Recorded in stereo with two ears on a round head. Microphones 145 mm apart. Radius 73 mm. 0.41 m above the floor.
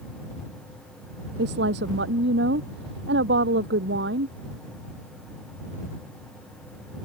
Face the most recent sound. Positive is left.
turn(degrees=-70)  # may be behind; listen again after turning